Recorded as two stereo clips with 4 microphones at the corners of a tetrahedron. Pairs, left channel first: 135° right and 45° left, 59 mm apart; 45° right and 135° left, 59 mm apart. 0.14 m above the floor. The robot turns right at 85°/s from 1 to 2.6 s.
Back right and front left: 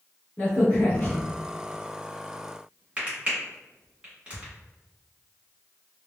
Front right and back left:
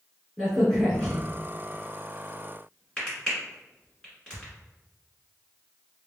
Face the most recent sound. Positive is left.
turn(degrees=15)